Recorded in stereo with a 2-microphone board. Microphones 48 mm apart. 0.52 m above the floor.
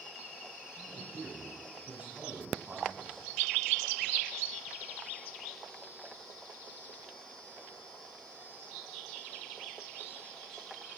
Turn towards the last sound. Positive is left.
turn(degrees=-25)  # may be behind; listen again after turning